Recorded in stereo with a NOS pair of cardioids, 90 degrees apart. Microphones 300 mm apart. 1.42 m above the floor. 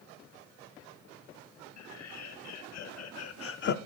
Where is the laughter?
65° left, 2.5 m; by 3.8 s 45° left, 0.5 m.